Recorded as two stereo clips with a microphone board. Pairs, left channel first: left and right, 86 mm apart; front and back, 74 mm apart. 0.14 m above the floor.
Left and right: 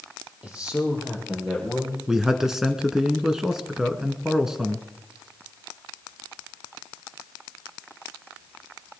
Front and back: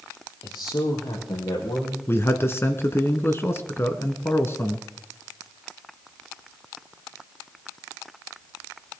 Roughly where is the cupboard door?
No cupboard door in this recording.